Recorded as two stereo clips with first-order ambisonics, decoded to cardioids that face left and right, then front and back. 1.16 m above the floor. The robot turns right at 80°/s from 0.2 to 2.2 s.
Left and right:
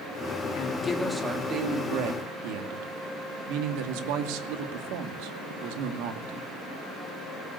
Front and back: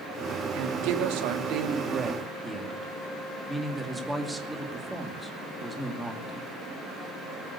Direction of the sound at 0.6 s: 135° left.